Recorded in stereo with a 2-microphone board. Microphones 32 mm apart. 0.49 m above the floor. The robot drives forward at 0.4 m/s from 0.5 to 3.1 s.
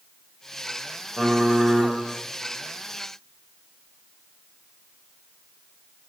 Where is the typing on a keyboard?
35° right (ahead or behind), 0.6 m; by 1.9 s 25° right (ahead or behind), 0.9 m.